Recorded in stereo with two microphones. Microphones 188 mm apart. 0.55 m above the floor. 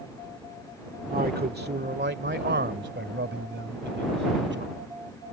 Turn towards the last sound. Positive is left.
turn(degrees=-75)  # may be behind; listen again after turning